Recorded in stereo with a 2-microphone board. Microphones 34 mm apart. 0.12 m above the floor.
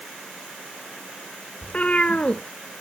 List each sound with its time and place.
1.6 s a cat meowing: 40° left (ahead or behind), 0.8 m